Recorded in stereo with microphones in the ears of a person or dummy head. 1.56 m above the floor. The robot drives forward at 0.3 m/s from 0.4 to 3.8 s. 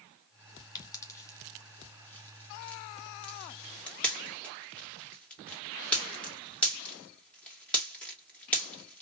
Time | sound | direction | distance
0.8 | a pop | 20° left (ahead or behind) | 0.6 m